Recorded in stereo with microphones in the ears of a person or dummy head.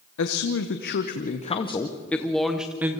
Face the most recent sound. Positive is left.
turn(degrees=-15)  # may be behind; listen again after turning